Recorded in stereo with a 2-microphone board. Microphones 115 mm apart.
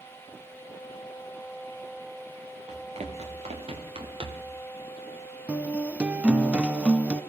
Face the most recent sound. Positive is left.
turn(degrees=-10)  # may be behind; listen again after turning